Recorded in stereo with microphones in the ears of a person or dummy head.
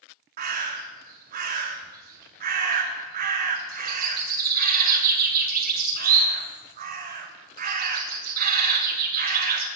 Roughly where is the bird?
Right.